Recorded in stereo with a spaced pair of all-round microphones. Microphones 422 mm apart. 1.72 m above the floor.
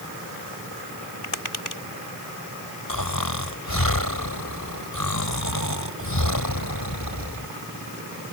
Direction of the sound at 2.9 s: 50° left (ahead or behind).